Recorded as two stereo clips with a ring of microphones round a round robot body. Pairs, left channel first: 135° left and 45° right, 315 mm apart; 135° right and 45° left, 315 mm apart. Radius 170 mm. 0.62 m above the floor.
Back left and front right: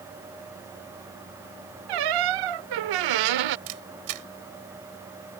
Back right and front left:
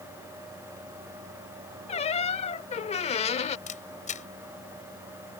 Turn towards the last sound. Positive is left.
turn(degrees=-70)